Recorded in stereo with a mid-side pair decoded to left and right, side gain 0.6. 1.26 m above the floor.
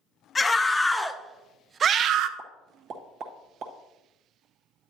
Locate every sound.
0.3 s a scream: 20° left, 1.1 m; by 2.3 s 65° right, 0.6 m
2.4 s a pop: 60° right, 1.4 m